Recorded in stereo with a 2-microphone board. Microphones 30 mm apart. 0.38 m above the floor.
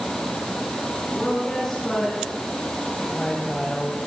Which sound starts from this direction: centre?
A woman speaking, at 1.1 s.